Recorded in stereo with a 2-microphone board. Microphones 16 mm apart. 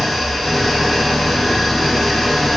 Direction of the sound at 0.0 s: 30° left (ahead or behind).